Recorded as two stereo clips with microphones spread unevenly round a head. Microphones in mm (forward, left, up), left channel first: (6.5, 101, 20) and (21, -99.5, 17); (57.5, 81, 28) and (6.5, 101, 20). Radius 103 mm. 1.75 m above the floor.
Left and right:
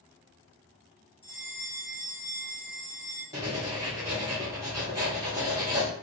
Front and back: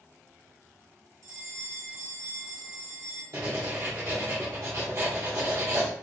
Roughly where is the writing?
Behind.